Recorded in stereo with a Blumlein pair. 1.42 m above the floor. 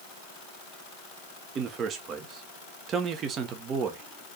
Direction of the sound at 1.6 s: 25° right.